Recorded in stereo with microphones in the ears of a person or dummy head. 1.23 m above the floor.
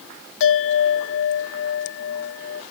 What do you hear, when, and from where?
0.4 s a bell: 60° left (ahead or behind), 0.6 m